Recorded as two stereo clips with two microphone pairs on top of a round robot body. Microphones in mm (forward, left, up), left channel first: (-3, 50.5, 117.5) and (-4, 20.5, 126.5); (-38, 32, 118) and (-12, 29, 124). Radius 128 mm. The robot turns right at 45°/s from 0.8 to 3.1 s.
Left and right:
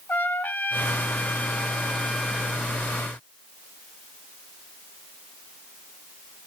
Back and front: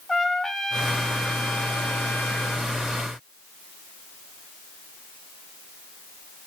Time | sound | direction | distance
0.1 | a trumpet | 95° left | 1.5 m